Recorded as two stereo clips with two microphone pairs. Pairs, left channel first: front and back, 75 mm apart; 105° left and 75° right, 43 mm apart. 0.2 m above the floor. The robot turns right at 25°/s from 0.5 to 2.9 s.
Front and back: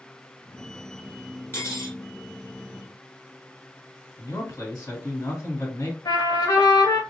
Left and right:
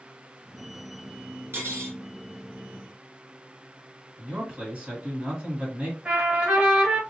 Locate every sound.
1.5 s cutlery clinking: 55° right, 1.4 m; by 2.0 s 45° right, 1.4 m
4.2 s a man speaking: 20° right, 2 m
6.0 s a trumpet: 15° right, 1.4 m